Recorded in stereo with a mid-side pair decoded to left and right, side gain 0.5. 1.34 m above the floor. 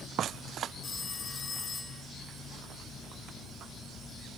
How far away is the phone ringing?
About 2.5 m.